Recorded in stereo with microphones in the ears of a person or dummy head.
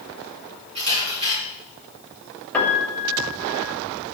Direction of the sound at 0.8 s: 30° right (ahead or behind).